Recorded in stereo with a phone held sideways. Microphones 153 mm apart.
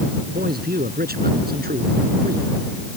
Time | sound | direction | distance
0.3 | a man speaking | 85° right | ?